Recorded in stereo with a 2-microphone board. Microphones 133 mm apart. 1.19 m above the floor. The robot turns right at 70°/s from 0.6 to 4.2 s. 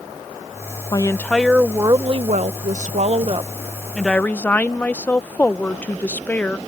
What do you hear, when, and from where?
0.9 s a woman speaking: 145° left; by 6.6 s 15° left